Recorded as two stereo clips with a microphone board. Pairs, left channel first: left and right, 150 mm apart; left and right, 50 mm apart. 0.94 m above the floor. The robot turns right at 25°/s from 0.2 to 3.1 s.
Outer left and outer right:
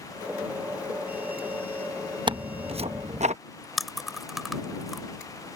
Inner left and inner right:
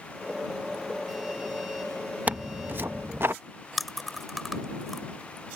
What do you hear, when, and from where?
2.3 s tearing paper: 30° right (ahead or behind); by 3.4 s 50° right (ahead or behind)
3.8 s chewing: centre (ahead or behind)